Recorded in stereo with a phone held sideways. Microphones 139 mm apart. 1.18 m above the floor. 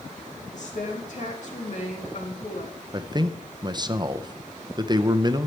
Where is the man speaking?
30° right (ahead or behind), 0.7 m.